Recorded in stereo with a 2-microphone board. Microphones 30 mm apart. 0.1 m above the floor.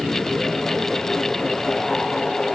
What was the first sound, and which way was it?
Only background noise.